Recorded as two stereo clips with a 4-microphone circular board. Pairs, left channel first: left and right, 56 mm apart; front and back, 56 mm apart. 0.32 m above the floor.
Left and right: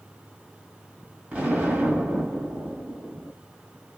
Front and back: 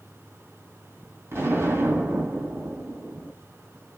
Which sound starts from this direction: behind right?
An explosion, at 1.3 s.